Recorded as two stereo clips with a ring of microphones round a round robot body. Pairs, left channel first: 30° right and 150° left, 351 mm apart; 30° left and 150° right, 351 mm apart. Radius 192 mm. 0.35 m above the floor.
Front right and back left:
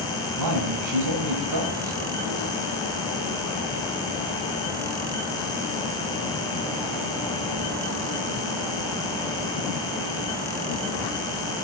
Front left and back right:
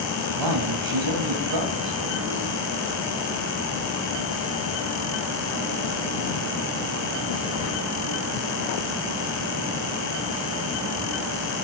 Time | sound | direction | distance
0.4 | a man speaking | 175° right | 2.5 m